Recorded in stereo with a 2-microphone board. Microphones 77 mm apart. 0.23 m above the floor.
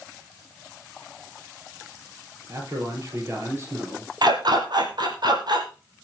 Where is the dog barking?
65° right (ahead or behind), 3 m.